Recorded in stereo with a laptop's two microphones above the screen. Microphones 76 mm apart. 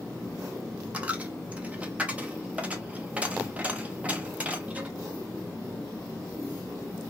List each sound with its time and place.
0.9 s a dropped coin: 15° right (ahead or behind), 0.5 m